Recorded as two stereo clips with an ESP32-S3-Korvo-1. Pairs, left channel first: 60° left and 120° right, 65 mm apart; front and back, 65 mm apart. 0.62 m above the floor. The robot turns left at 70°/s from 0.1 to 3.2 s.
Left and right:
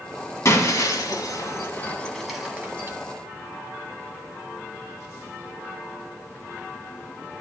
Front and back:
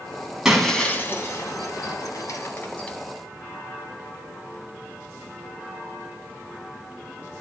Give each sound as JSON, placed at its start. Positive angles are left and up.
{"t": 0.5, "sound": "breaking glass", "azimuth_deg": 100, "distance_m": 1.4}